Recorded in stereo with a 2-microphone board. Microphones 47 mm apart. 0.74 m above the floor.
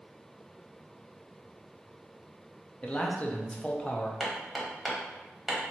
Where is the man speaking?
25° left (ahead or behind), 0.6 m.